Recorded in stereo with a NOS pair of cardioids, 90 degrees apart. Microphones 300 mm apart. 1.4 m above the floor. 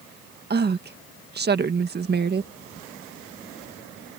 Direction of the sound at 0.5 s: 35° right.